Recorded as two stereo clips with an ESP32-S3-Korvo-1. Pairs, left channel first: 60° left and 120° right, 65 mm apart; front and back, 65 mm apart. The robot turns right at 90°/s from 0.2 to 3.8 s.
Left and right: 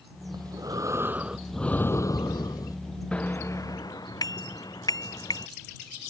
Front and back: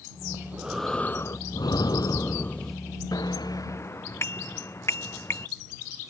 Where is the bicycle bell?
15° right; by 5.5 s 50° left.